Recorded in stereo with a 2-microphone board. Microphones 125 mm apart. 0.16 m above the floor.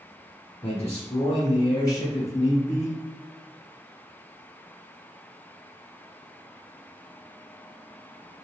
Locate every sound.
0.6 s a man speaking: 40° left (ahead or behind), 1.4 m; by 3.0 s 20° left (ahead or behind), 2 m